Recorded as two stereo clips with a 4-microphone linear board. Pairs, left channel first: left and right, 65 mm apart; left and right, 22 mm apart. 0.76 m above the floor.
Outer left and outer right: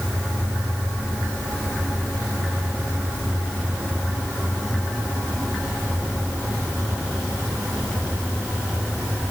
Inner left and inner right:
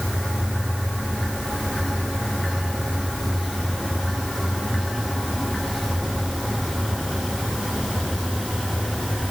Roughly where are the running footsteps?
No running footsteps in this recording.